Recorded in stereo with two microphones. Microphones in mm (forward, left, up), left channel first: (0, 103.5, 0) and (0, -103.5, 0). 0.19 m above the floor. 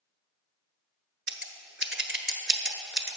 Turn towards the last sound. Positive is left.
turn(degrees=-70)  # may be behind; listen again after turning